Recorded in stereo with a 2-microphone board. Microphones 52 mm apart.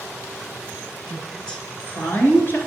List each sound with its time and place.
1.1 s a woman speaking: 5° left (ahead or behind), 2 m; by 2.6 s 45° left (ahead or behind), 2.5 m